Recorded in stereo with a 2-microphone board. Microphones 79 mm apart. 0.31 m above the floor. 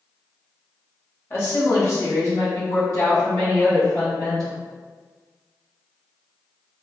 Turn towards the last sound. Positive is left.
turn(degrees=45)  # may be behind; listen again after turning